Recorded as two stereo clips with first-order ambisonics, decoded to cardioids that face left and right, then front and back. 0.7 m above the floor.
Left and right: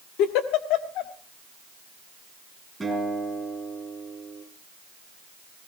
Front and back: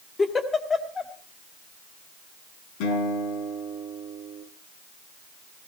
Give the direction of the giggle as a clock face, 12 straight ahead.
10 o'clock.